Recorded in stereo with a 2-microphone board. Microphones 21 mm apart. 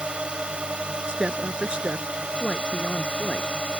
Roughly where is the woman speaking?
Right.